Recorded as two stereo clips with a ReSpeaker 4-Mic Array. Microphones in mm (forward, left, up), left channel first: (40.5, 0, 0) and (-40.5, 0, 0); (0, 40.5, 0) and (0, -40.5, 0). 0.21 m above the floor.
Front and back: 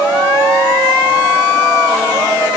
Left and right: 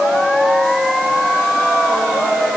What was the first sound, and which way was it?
Only background noise.